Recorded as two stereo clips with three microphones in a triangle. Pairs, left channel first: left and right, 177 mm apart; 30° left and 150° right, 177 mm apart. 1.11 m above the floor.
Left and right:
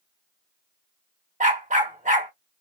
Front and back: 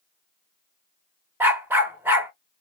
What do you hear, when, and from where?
1.4 s a dog barking: 75° right, 0.8 m